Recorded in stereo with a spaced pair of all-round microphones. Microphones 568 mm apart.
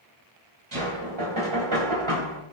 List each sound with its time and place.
0.7 s knocking: 55° right (ahead or behind), 3.5 m